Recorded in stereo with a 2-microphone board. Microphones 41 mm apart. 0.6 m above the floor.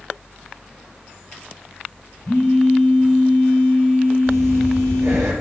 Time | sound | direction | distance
2.2 | a phone buzzing | 60° left (ahead or behind) | 3.5 m
4.3 | breathing | 80° right | 3 m